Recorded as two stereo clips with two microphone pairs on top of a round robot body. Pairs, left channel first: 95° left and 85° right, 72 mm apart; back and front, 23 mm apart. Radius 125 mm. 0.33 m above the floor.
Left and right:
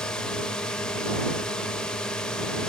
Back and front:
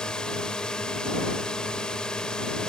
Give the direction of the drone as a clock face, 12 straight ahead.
7 o'clock.